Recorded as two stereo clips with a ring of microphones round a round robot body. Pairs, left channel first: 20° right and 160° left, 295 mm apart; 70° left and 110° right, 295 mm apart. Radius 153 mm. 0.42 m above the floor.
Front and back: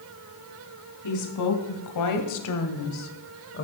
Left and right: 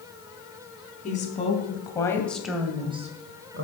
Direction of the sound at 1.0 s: 5° left.